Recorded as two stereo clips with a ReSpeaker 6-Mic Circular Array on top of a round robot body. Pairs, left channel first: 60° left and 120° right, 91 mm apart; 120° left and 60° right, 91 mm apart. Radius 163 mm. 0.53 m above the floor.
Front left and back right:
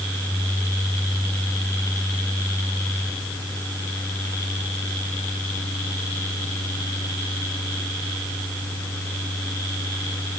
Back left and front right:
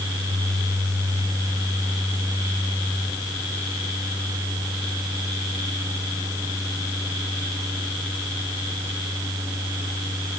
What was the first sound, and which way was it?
Only background noise.